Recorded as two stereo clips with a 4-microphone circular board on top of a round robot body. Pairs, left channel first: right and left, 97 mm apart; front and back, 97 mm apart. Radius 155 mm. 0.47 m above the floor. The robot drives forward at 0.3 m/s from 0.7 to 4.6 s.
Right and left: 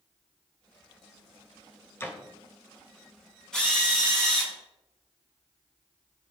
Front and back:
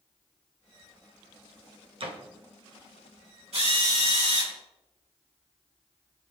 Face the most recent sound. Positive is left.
turn(degrees=-170)